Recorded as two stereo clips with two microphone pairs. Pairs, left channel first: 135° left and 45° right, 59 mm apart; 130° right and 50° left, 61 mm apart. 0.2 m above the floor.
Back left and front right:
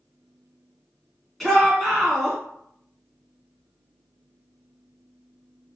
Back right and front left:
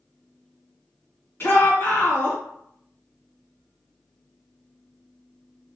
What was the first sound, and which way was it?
A shout, 140° right.